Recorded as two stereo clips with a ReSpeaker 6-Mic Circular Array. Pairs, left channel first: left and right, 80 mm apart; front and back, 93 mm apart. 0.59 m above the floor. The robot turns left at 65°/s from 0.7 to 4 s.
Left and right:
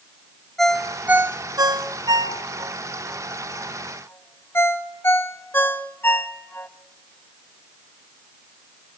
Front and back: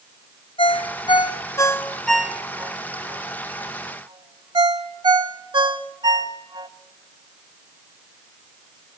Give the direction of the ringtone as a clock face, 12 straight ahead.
12 o'clock.